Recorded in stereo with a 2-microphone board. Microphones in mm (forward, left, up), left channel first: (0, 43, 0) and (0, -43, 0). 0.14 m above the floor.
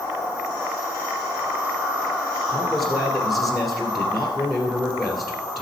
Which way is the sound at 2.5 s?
Centre (ahead or behind).